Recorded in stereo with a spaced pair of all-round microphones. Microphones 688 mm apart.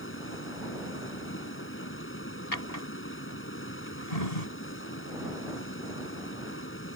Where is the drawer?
65° left (ahead or behind).